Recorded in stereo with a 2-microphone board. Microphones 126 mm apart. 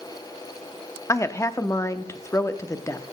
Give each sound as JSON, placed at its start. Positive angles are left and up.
{"t": 1.1, "sound": "a woman speaking", "side_deg": 25, "distance_m": 0.6}